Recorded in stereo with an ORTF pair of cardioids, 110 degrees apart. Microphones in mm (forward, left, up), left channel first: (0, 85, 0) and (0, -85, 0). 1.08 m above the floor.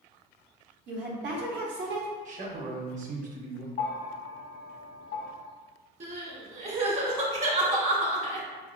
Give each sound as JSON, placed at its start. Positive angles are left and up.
{"t": 0.9, "sound": "a woman speaking", "azimuth_deg": -70, "distance_m": 1.0}
{"t": 2.2, "sound": "a man speaking", "azimuth_deg": -45, "distance_m": 1.0}
{"t": 3.8, "sound": "a bell", "azimuth_deg": 55, "distance_m": 0.8}
{"t": 6.0, "sound": "crying", "azimuth_deg": -35, "distance_m": 1.2}